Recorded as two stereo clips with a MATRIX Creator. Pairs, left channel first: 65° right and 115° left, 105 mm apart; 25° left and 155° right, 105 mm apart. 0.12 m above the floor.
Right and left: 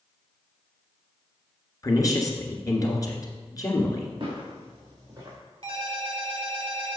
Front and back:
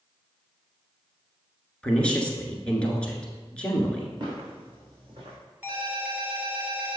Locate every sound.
1.8 s a woman speaking: 50° right, 1.3 m
4.2 s footsteps: 155° left, 3 m; by 5.4 s 160° left, 3.5 m
5.6 s a ringtone: 130° left, 1.9 m